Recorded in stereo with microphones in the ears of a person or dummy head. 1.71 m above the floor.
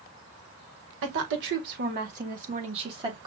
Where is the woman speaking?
70° right (ahead or behind), 1.6 m; by 3.3 s 25° right (ahead or behind), 1.4 m.